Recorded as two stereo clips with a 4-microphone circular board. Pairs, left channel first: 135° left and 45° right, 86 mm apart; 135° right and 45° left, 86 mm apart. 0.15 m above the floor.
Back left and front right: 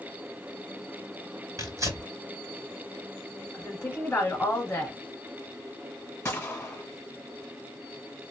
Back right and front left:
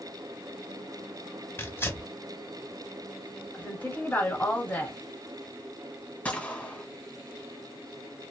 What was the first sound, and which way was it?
Tearing paper, 80° right.